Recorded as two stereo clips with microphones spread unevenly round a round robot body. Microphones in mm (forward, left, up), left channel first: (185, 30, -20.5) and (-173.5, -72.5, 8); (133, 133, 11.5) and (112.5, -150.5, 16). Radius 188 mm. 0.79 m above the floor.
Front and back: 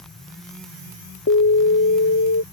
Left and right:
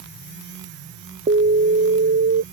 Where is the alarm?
35° right.